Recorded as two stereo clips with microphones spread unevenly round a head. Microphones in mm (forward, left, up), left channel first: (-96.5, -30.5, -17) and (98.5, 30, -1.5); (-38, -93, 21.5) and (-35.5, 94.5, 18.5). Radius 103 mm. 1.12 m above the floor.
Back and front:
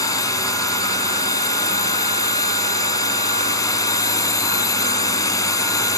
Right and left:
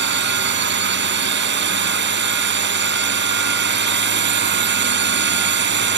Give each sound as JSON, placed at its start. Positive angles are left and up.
{"t": 0.0, "sound": "a drone", "azimuth_deg": 120}